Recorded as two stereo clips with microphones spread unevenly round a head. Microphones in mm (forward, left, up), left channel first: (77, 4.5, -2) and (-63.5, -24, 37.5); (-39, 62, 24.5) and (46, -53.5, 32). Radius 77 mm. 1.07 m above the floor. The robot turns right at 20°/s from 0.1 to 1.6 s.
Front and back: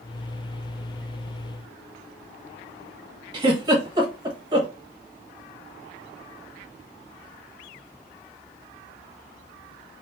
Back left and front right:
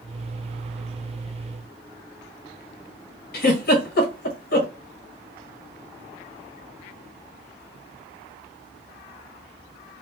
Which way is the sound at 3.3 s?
125° left.